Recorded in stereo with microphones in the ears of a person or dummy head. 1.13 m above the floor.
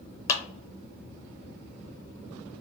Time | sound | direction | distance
0.3 | a clap | 20° left (ahead or behind) | 0.9 m